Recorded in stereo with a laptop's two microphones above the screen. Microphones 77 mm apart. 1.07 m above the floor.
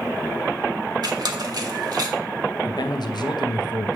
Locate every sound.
1.0 s a squeak: 65° right (ahead or behind), 1.1 m
2.6 s a man speaking: 70° left (ahead or behind), 0.7 m